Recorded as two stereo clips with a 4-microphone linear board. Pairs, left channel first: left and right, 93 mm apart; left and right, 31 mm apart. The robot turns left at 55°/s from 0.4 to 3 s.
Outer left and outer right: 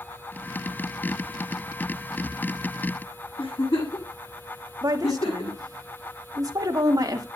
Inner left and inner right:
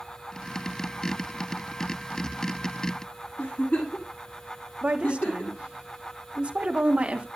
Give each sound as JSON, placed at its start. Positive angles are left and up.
{"t": 3.4, "sound": "a giggle", "side_deg": 80, "distance_m": 8.5}
{"t": 4.8, "sound": "a woman speaking", "side_deg": -40, "distance_m": 2.0}